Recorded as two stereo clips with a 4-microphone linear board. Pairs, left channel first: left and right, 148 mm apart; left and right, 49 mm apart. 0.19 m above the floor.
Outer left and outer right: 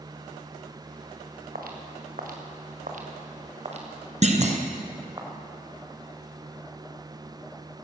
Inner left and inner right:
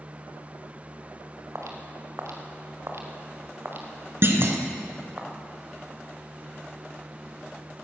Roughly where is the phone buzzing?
No phone buzzing in this recording.